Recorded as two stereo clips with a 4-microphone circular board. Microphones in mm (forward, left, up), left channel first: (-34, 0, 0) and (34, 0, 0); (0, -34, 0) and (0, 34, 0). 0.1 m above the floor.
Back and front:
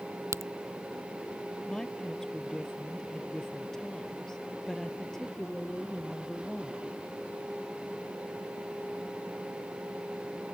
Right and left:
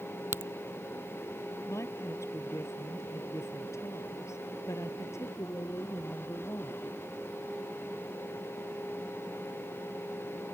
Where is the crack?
40° left.